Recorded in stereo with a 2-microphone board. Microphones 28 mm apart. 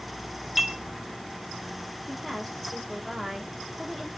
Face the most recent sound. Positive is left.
turn(degrees=10)  # may be behind; listen again after turning